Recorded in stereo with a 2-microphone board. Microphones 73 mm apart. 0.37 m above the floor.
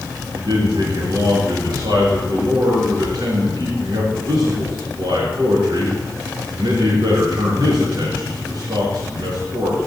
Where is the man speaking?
75° right (ahead or behind), 4.5 m.